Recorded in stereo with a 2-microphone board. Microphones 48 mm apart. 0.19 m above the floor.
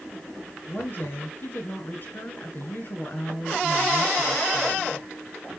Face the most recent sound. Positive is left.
turn(degrees=45)  # may be behind; listen again after turning